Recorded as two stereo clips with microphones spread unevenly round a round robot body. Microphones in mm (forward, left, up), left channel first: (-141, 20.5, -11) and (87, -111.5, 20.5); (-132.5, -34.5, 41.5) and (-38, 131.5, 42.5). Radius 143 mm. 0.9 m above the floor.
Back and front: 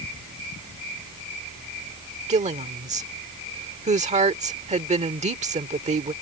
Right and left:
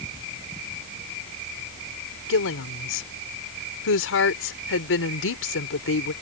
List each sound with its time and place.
2.3 s a woman speaking: 95° right